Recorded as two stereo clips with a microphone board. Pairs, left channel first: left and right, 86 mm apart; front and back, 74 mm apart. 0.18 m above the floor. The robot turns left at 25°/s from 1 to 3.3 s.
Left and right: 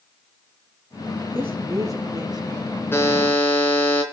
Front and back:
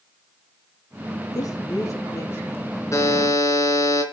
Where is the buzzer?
35° left, 3 m; by 4.0 s 25° left, 3 m.